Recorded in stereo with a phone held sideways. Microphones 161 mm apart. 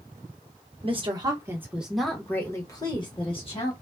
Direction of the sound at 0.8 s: 35° right (ahead or behind).